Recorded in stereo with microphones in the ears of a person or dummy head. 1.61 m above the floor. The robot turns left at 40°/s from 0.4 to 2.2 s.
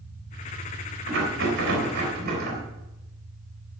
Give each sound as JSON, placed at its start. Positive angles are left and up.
{"t": 1.1, "sound": "a rattle", "azimuth_deg": -75, "distance_m": 3.5}